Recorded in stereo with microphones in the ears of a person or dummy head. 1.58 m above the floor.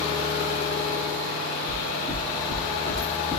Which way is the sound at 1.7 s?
45° right (ahead or behind).